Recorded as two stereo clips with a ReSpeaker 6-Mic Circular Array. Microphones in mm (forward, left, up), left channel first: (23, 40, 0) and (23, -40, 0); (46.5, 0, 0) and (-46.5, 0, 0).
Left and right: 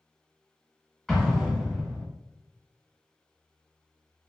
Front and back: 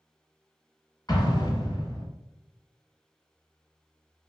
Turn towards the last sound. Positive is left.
turn(degrees=10)